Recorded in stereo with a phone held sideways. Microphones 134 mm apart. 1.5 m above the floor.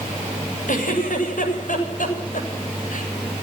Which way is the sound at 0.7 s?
80° left.